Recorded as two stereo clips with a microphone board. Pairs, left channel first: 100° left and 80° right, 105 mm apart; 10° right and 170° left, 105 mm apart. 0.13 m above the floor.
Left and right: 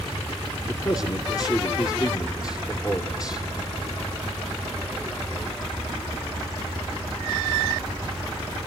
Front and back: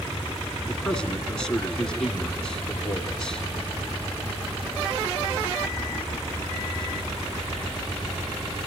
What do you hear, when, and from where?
0.6 s a man speaking: 70° left, 2 m